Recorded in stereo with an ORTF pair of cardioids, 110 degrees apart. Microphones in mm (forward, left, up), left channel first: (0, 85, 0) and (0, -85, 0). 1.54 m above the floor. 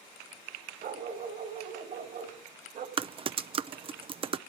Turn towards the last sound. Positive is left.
turn(degrees=-30)